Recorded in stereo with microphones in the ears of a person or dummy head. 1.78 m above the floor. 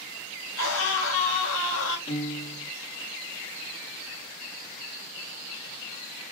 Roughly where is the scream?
Left.